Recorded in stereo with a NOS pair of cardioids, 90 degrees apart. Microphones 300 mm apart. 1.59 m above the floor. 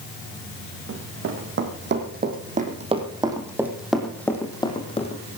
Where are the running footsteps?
50° right, 5 m; by 5.2 s 25° left, 4.5 m.